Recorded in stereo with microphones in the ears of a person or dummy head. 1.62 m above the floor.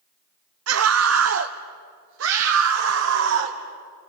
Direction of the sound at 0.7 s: 85° right.